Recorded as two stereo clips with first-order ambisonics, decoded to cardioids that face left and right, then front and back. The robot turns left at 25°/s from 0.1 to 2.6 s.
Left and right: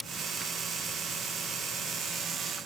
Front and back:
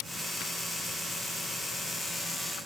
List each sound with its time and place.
Only background noise.